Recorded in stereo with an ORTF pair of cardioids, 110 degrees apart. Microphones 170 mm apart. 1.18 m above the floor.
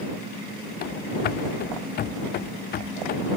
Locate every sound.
0.8 s running footsteps: 65° left